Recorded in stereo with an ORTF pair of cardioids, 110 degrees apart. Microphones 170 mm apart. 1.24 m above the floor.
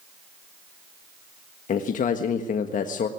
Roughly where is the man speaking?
Ahead left.